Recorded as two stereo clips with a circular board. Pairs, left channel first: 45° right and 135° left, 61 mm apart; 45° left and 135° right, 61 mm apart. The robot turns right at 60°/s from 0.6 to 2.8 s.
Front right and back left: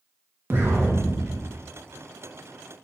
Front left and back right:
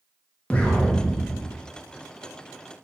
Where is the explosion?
110° left, 0.6 m; by 1.6 s 165° left, 0.6 m.